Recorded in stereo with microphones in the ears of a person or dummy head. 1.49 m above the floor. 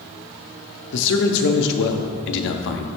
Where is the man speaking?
65° left (ahead or behind), 0.5 m.